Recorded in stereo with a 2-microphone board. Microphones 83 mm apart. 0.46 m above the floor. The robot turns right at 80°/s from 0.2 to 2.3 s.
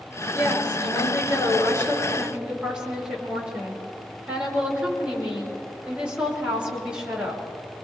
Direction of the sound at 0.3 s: 35° left.